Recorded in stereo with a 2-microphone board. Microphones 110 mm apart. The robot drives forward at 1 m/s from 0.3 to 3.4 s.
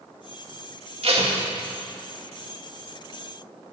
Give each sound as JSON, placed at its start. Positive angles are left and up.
{"t": 1.0, "sound": "tape being pulled", "side_deg": -65, "distance_m": 2.0}